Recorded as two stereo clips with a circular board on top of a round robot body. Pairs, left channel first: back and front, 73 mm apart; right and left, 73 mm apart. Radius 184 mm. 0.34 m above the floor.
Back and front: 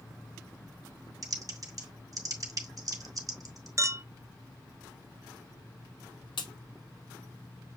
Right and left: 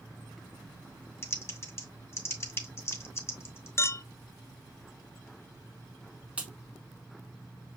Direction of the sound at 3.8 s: 40° right.